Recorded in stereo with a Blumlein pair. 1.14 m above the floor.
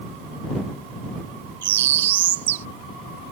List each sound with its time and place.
1.6 s a bird: 55° right